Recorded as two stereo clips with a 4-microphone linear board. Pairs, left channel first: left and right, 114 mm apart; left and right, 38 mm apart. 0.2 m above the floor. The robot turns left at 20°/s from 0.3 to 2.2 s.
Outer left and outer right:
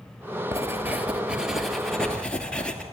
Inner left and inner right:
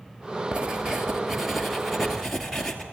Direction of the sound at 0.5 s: 155° right.